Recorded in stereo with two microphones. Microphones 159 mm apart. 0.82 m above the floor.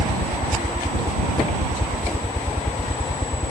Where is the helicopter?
25° left (ahead or behind).